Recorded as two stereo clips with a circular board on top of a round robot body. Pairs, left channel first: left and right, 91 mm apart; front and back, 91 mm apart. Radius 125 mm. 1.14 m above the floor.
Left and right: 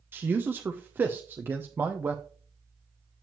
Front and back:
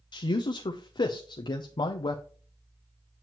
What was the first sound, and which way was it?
A man speaking, 25° right.